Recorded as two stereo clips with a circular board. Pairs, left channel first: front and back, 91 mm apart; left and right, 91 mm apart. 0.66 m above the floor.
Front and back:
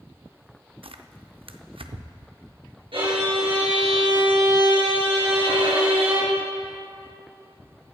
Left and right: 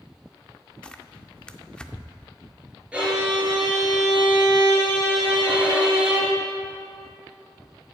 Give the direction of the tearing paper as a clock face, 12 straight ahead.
6 o'clock.